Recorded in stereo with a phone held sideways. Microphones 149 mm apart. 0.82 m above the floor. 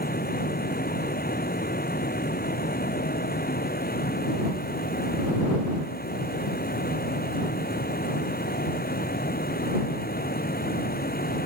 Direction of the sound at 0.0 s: 90° left.